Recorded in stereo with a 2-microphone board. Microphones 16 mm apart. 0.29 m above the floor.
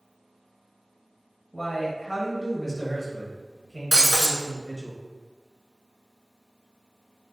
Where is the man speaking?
25° left (ahead or behind), 1.4 m.